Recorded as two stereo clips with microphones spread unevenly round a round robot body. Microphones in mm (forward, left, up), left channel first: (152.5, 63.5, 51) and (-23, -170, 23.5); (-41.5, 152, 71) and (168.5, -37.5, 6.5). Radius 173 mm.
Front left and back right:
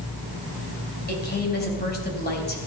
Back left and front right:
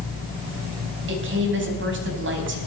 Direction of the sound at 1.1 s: 5° right.